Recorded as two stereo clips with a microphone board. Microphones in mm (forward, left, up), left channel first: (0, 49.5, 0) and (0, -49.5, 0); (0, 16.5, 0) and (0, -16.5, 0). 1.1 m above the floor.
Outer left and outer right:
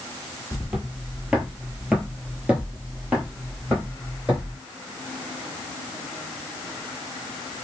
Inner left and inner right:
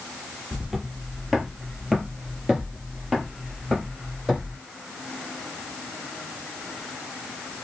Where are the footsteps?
5° right (ahead or behind), 1.3 m; by 4.6 s 10° right (ahead or behind), 2 m.